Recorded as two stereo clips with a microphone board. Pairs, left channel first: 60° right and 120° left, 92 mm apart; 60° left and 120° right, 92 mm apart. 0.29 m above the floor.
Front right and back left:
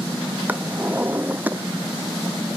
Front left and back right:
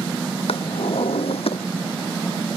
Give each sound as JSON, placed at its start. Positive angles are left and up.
{"t": 0.5, "sound": "a drawer", "azimuth_deg": 50}